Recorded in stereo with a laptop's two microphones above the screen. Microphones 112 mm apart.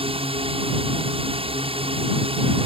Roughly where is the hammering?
I don't hear hammering.